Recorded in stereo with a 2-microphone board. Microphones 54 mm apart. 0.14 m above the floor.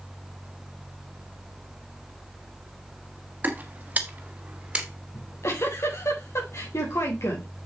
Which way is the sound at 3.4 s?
35° right (ahead or behind).